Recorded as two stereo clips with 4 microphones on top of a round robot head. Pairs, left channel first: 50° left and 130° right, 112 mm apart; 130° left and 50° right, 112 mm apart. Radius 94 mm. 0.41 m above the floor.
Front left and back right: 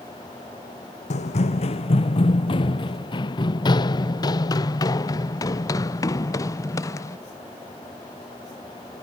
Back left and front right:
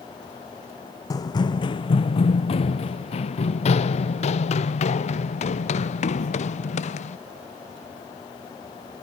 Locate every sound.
1.1 s running footsteps: 75° left; by 7.2 s 110° left